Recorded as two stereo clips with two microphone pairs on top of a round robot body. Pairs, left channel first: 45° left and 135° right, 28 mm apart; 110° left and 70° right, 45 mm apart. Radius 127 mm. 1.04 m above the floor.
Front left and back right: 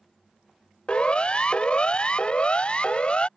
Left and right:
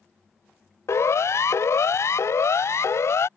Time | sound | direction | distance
0.9 | a siren | 100° left | ?